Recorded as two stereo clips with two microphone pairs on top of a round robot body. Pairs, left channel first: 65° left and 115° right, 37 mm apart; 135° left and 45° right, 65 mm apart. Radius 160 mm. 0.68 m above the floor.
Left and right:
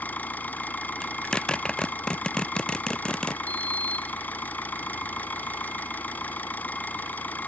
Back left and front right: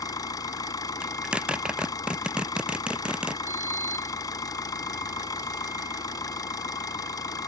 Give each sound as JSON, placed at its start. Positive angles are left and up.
{"t": 0.0, "sound": "an engine running", "azimuth_deg": 110}
{"t": 1.0, "sound": "a zipper", "azimuth_deg": 25}
{"t": 3.5, "sound": "a sliding door", "azimuth_deg": 15}